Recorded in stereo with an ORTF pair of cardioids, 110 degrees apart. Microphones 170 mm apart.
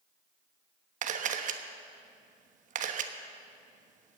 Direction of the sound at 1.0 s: 50° right.